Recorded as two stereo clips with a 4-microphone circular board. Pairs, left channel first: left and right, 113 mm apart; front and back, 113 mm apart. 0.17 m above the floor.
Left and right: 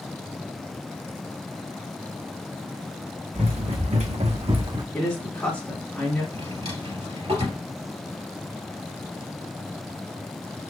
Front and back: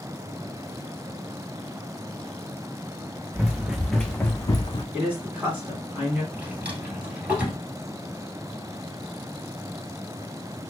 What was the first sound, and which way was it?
Running footsteps, 105° right.